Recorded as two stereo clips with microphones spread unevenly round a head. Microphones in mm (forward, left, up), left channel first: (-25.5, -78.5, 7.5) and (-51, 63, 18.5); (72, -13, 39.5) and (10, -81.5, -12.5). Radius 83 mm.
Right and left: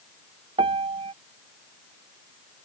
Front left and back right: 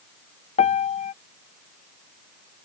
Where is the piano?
35° left.